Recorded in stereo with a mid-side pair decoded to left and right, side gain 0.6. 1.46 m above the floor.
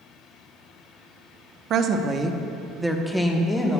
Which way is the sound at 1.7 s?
55° right.